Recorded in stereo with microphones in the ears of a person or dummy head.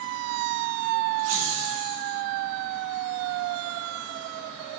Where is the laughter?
85° right, 1.6 m; by 2.2 s 70° right (ahead or behind), 2 m.